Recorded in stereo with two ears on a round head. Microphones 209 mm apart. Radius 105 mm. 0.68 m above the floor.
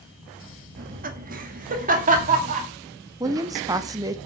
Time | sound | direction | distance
0.8 | laughter | 40° right (ahead or behind) | 1.1 m
3.2 | a woman speaking | 15° right (ahead or behind) | 0.7 m